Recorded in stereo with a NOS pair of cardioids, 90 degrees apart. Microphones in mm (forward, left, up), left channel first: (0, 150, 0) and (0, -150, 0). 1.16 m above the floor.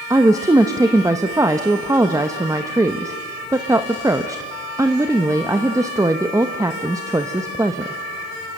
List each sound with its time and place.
0.1 s a woman speaking: 10° right, 1.0 m